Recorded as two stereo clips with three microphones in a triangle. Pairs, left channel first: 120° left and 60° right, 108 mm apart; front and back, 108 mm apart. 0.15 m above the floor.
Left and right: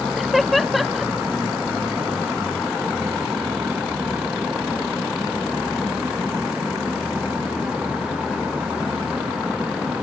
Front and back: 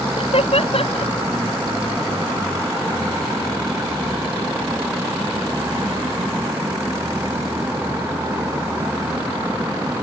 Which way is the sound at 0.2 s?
30° left.